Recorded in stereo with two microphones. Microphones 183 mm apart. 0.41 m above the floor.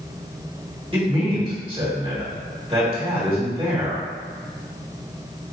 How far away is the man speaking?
About 1.5 m.